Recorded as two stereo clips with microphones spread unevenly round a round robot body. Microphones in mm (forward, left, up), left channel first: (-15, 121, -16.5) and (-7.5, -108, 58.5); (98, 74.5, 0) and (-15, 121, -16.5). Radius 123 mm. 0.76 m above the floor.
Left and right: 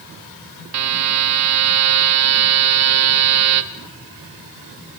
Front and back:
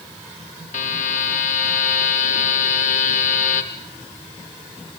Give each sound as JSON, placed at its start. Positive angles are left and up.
{"t": 0.7, "sound": "a buzzer", "azimuth_deg": -60, "distance_m": 1.3}